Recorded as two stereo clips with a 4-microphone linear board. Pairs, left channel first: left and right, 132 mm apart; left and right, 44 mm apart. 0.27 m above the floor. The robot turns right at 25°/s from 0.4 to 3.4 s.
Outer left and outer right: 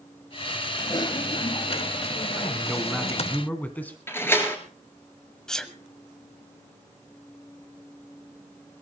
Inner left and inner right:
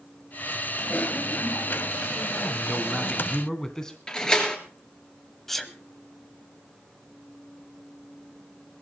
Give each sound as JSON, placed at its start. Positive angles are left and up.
{"t": 0.8, "sound": "typing on a keyboard", "azimuth_deg": 45, "distance_m": 0.6}
{"t": 2.4, "sound": "a man speaking", "side_deg": -10, "distance_m": 2.0}
{"t": 4.1, "sound": "a door slam", "side_deg": 20, "distance_m": 3.0}
{"t": 5.5, "sound": "a sneeze", "side_deg": 5, "distance_m": 1.4}